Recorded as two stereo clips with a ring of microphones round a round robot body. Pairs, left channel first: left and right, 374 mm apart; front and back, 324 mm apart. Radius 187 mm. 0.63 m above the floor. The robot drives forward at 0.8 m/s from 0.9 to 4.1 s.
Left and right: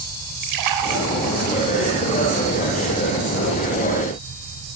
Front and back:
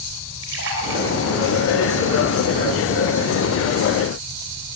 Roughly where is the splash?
Behind right.